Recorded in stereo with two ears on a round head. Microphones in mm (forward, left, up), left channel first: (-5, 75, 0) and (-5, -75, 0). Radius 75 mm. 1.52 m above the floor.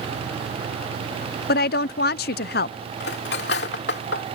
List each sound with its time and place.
1.5 s a woman speaking: 55° left (ahead or behind)
3.0 s cutlery clinking: 70° left (ahead or behind)